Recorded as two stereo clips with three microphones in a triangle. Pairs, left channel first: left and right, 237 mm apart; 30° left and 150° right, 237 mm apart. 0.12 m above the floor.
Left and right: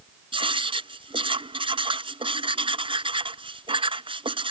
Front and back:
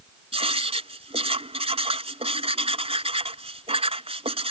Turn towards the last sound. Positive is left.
turn(degrees=-125)